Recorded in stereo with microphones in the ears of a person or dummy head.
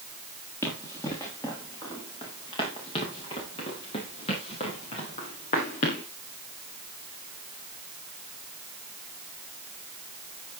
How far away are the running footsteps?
About 6.5 m.